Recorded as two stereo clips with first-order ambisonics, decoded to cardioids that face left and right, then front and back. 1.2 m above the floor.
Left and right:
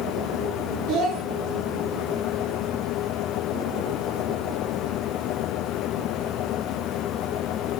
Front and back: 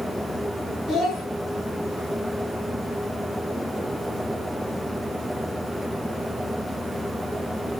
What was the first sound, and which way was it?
A child speaking, 60° right.